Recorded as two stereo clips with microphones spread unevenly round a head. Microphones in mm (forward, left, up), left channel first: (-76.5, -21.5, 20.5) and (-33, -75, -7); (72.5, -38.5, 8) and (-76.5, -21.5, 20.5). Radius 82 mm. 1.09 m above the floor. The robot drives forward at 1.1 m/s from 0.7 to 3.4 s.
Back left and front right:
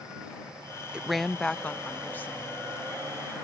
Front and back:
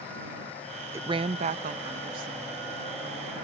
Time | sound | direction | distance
0.9 | a woman speaking | 110° right | ?